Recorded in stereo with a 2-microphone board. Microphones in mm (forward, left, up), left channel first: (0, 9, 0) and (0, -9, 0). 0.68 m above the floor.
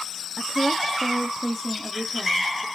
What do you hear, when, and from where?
0.4 s a woman speaking: 5° right (ahead or behind), 0.9 m; by 2.6 s 5° left (ahead or behind), 2.0 m